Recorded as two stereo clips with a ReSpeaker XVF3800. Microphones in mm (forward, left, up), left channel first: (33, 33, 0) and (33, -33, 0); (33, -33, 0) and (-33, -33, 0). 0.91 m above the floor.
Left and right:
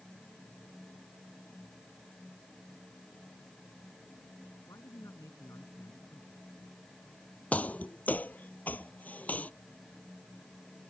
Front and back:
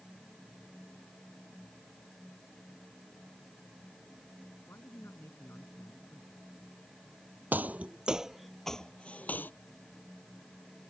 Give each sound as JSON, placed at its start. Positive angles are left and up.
{"t": 4.7, "sound": "a man speaking", "azimuth_deg": 50}
{"t": 7.5, "sound": "footsteps", "azimuth_deg": 140}